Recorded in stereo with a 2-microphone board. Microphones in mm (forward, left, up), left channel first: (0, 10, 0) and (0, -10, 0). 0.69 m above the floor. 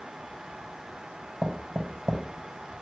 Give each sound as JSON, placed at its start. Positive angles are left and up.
{"t": 1.4, "sound": "knocking", "side_deg": -10, "distance_m": 2.0}